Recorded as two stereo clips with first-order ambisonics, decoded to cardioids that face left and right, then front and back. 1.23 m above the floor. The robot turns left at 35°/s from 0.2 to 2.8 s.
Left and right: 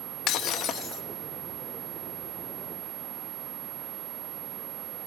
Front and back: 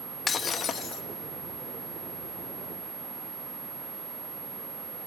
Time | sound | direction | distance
0.3 | breaking glass | 65° left | 0.7 m